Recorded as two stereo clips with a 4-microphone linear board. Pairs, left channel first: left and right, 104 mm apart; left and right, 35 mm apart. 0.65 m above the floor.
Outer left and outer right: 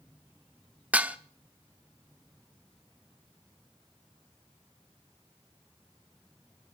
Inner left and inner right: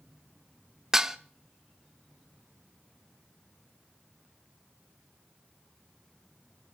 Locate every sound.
0.9 s dishes clattering: 10° right (ahead or behind), 0.8 m